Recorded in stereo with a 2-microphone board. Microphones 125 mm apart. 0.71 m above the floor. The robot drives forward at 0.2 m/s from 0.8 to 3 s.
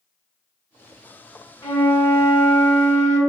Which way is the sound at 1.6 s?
25° left (ahead or behind).